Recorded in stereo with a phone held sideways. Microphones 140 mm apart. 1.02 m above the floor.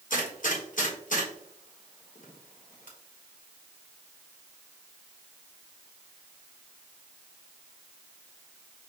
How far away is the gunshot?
About 1.4 m.